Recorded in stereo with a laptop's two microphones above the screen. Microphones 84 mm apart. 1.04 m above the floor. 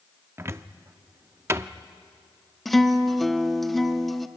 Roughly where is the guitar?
Centre.